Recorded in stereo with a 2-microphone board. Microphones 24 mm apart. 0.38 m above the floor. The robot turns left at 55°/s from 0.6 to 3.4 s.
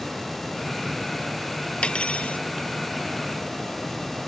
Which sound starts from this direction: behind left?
Cutlery clinking, at 1.8 s.